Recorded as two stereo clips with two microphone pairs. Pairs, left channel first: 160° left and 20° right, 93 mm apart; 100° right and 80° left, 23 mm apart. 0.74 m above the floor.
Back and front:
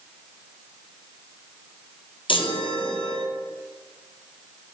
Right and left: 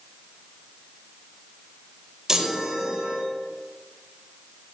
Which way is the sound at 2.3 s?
145° left.